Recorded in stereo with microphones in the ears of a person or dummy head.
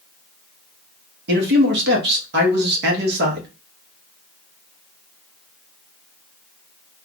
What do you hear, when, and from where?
1.3 s a man speaking: 60° right (ahead or behind), 1.1 m